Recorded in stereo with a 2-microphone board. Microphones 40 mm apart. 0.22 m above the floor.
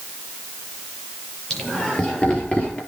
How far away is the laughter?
About 5 m.